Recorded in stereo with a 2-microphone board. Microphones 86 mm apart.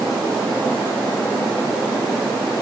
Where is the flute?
I don't hear a flute.